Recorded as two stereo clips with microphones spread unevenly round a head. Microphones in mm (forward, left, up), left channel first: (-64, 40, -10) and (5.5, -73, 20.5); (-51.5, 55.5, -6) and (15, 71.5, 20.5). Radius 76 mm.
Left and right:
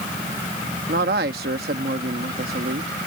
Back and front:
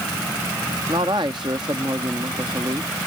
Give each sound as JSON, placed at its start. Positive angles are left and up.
{"t": 0.9, "sound": "a man speaking", "azimuth_deg": -35}